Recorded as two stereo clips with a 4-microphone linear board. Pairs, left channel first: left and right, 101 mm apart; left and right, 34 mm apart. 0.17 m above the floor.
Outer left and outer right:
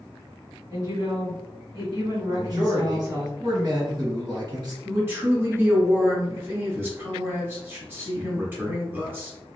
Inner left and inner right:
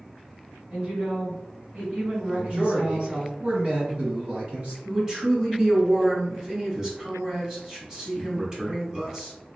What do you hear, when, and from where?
0.7 s a woman speaking: 45° right (ahead or behind), 2.0 m
2.3 s a man speaking: 45° right (ahead or behind), 1.9 m
4.8 s a man speaking: 20° right (ahead or behind), 1.2 m